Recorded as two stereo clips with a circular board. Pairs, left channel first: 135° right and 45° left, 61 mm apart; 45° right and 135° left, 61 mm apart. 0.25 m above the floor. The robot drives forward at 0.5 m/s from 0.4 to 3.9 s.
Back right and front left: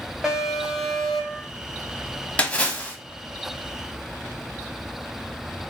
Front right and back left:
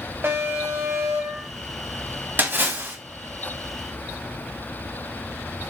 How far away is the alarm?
About 1.3 m.